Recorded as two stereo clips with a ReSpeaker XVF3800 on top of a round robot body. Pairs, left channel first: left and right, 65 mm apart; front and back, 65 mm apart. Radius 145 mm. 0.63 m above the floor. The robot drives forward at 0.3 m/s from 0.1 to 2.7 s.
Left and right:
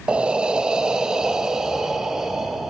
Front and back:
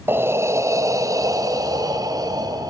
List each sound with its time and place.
0.1 s breathing: 155° right, 0.6 m; by 2.7 s 175° right, 1.2 m